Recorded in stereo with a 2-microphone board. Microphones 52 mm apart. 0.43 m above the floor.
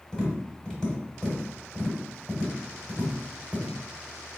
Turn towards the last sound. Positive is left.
turn(degrees=15)  # may be behind; listen again after turning